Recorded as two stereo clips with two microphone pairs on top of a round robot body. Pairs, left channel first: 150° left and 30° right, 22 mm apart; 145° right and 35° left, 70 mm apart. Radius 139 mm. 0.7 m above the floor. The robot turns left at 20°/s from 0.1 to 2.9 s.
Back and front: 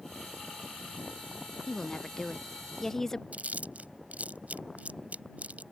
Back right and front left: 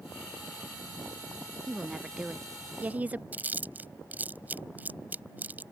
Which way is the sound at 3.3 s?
30° right.